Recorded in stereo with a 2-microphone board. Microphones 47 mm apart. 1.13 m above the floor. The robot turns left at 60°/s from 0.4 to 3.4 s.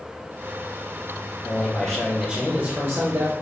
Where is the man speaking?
30° left, 1.1 m; by 3.3 s 80° right, 1.1 m.